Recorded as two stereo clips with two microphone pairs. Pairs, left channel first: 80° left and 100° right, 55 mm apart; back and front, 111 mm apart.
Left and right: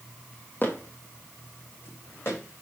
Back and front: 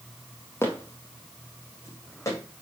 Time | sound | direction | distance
0.6 | footsteps | 120° left | 1.4 m